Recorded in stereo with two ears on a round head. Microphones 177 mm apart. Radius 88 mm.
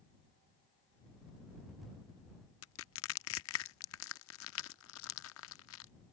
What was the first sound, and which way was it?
Crushing, 75° left (ahead or behind).